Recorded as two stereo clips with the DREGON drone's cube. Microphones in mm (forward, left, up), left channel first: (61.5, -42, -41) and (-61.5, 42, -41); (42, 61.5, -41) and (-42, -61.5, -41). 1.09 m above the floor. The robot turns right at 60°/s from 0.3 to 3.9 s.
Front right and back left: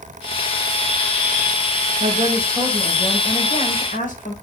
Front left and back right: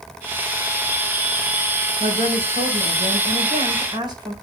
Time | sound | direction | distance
2.0 | a woman speaking | 175° right | 3.5 m